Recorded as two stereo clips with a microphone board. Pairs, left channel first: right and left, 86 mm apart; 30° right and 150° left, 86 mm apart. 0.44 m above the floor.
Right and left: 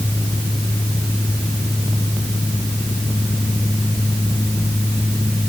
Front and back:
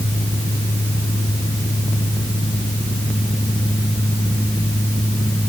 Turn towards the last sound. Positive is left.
No sound to turn to.